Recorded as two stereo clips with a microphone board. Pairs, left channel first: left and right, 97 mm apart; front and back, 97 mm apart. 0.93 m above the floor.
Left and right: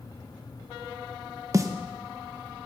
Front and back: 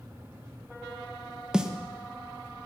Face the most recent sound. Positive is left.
turn(degrees=-105)